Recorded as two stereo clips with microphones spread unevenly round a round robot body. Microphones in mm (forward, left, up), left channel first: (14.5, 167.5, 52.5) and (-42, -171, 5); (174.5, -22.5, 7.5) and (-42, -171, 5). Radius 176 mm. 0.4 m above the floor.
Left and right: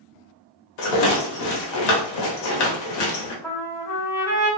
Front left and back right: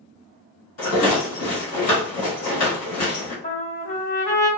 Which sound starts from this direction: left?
A rattle, at 0.8 s.